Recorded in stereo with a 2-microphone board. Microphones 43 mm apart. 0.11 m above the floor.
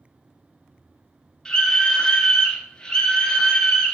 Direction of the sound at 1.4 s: 15° left (ahead or behind).